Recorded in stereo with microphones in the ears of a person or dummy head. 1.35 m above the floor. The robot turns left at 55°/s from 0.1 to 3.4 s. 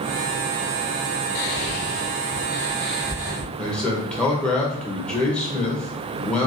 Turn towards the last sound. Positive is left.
turn(degrees=5)  # may be behind; listen again after turning